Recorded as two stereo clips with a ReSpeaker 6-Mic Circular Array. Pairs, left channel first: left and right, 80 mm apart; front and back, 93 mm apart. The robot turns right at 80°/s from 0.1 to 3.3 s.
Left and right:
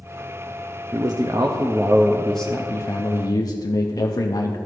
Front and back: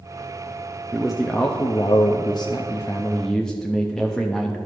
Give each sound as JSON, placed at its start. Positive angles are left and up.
{"t": 0.9, "sound": "a man speaking", "azimuth_deg": -105, "distance_m": 0.5}